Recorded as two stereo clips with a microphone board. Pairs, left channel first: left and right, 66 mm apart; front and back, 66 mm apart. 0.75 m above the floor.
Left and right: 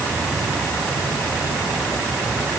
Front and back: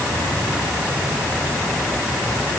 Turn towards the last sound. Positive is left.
No sound to turn to.